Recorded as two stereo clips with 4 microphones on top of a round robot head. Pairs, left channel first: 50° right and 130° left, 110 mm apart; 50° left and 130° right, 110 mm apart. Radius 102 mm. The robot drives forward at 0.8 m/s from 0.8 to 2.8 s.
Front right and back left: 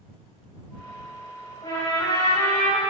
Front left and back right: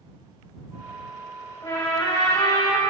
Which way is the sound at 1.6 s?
Straight ahead.